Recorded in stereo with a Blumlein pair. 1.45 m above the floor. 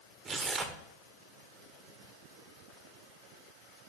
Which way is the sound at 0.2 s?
20° right.